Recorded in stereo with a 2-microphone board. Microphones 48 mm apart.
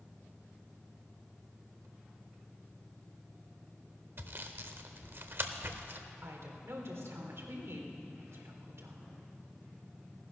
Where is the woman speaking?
65° right (ahead or behind), 2.5 m.